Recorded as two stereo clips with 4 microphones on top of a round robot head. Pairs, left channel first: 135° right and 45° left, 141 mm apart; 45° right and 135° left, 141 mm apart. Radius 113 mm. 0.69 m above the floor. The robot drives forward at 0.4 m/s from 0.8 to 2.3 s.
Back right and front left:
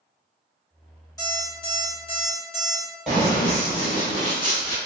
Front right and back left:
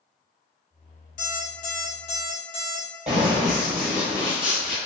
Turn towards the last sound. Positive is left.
turn(degrees=-140)